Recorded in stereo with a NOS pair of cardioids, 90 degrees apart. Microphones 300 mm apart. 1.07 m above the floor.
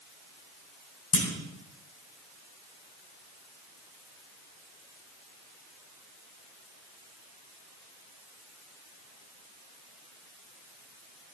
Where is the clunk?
50° left, 2.5 m.